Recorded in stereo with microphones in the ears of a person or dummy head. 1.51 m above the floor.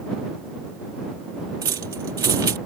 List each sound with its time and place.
1.6 s keys jangling: 25° right (ahead or behind)